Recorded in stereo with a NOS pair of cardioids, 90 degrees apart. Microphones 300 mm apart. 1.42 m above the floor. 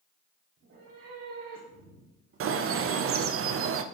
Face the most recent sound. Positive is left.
turn(degrees=-45)